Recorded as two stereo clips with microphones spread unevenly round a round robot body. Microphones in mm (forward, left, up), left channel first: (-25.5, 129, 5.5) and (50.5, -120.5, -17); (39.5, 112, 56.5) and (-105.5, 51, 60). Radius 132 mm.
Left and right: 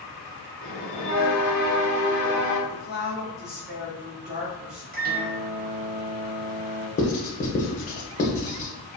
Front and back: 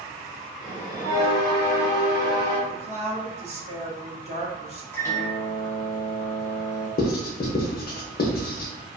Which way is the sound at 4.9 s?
45° right.